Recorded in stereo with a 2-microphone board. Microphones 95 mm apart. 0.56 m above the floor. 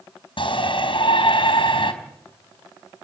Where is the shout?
60° left (ahead or behind), 4 m.